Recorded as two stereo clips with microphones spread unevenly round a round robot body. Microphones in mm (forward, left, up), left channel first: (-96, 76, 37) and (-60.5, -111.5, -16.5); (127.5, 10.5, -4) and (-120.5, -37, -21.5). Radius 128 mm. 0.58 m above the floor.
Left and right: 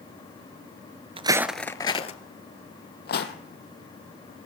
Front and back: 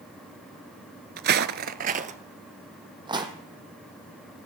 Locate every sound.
1.2 s footsteps: 145° right, 0.6 m; by 3.3 s 115° left, 1.6 m